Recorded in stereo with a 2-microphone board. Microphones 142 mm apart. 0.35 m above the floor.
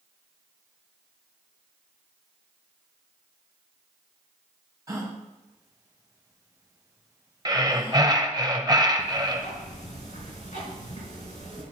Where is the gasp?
25° right (ahead or behind), 1.9 m.